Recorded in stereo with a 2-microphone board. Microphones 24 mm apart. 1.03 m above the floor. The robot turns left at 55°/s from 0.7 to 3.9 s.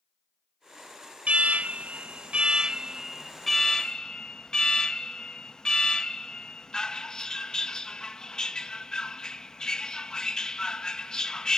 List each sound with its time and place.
1.3 s an alarm: 65° right, 0.8 m; by 11.6 s 150° left, 0.8 m